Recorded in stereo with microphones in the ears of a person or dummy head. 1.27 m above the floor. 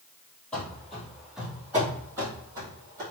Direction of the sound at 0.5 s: 5° left (ahead or behind).